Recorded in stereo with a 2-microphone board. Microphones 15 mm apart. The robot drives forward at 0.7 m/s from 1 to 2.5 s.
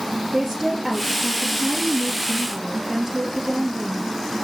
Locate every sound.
0.3 s a woman speaking: 20° right (ahead or behind), 6 m; by 4.5 s 25° right (ahead or behind), 5 m